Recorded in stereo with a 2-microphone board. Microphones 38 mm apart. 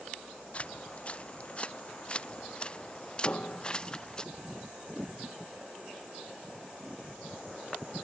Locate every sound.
0.5 s footsteps: 35° left (ahead or behind); by 4.2 s 20° left (ahead or behind)
3.2 s a piano: 40° left (ahead or behind)